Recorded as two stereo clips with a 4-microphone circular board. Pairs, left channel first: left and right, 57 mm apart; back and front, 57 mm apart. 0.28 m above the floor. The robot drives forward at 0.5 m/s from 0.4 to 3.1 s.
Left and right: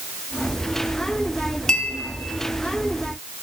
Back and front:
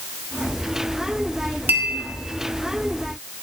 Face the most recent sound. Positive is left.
turn(degrees=150)